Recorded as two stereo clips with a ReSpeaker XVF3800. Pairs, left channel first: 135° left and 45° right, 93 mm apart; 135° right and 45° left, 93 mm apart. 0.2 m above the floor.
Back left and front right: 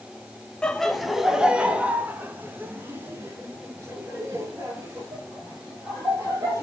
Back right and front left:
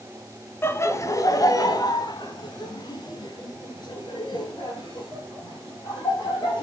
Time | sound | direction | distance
0.6 | laughter | 155° right | 1.0 m